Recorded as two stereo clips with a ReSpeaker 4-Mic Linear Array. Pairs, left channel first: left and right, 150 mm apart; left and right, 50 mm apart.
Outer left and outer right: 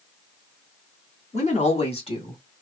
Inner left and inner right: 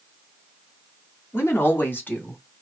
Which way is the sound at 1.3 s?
50° left (ahead or behind).